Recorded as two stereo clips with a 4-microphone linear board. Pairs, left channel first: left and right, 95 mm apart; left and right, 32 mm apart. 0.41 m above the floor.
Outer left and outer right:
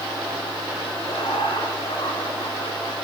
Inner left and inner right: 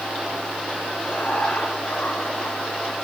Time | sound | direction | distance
1.0 | laughter | 50° left (ahead or behind) | 4.5 m